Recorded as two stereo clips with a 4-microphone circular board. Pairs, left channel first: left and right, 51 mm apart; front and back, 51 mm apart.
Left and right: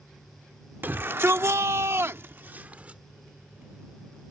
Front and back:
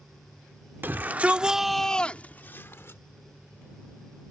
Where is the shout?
135° right; by 3.0 s 30° right.